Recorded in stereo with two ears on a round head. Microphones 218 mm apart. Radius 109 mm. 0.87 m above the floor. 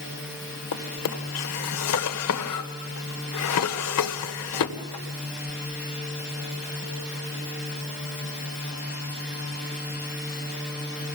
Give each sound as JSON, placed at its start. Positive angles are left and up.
{"t": 0.7, "sound": "a drawer", "side_deg": 70, "distance_m": 1.7}